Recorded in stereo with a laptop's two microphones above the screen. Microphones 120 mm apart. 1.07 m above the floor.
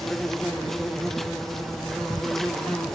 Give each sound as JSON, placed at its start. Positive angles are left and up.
{"t": 0.0, "sound": "an insect", "side_deg": 5, "distance_m": 0.8}